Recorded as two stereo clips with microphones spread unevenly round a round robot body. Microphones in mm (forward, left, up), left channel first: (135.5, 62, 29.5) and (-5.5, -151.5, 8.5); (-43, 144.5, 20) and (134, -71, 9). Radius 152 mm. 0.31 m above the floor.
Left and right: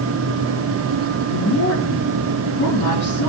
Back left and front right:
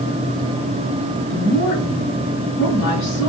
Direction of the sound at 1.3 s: 85° left.